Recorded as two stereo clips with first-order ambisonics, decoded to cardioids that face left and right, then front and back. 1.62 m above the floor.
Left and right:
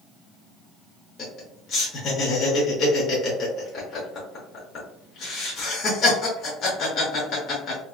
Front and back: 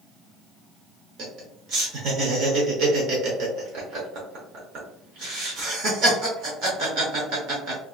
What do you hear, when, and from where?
1.2 s laughter: 145° left, 0.8 m